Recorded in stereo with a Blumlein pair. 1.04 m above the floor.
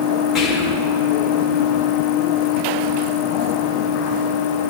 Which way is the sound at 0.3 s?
10° left.